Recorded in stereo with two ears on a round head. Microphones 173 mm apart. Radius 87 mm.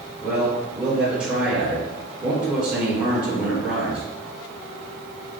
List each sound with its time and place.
0.2 s a man speaking: 5° right (ahead or behind), 1.3 m